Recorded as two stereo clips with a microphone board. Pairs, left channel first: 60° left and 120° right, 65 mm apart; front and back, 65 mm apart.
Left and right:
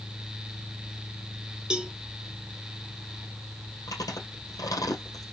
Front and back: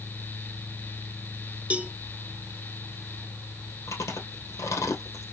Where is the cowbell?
165° right, 0.5 m.